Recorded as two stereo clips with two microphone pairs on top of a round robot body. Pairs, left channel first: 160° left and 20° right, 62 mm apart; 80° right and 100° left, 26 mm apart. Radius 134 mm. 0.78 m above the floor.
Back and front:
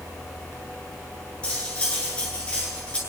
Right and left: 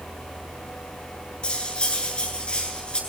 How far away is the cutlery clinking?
About 8 m.